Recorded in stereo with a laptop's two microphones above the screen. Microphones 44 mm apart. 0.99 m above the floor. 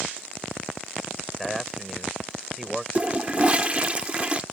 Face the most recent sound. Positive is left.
turn(degrees=-25)  # may be behind; listen again after turning